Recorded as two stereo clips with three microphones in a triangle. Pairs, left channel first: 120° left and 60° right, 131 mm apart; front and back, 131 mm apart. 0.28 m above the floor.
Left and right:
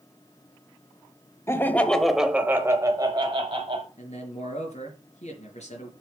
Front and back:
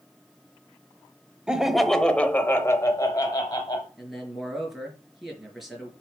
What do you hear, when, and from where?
1.5 s laughter: 110° left, 0.9 m; by 3.9 s 40° right, 1.2 m
4.0 s a man speaking: 90° left, 4 m